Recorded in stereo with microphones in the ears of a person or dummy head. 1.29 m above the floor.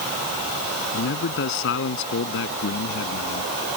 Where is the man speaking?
65° left (ahead or behind).